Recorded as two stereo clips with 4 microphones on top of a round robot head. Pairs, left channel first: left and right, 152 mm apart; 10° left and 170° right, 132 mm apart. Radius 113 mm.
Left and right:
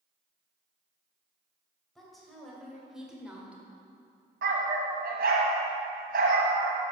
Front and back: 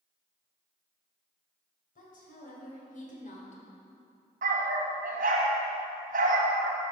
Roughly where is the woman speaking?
Ahead.